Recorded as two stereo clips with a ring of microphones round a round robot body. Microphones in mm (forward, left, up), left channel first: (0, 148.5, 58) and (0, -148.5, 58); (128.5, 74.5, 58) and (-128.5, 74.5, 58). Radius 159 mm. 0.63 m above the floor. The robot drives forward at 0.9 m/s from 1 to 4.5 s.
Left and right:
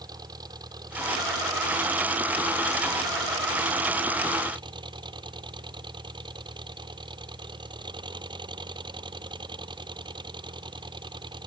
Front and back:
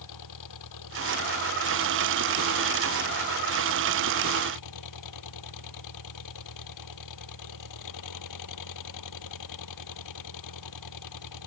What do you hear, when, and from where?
0.0 s an engine running: 10° right; by 11.5 s 15° right